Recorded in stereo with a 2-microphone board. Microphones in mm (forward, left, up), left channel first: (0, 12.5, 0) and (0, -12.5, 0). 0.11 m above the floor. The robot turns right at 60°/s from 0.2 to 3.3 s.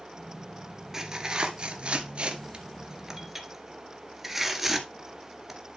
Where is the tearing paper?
20° right (ahead or behind), 1.8 m; by 5.6 s 10° right (ahead or behind), 1.8 m.